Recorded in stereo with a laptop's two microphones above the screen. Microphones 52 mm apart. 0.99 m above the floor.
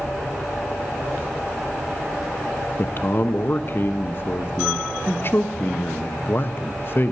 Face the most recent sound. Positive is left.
turn(degrees=45)  # may be behind; listen again after turning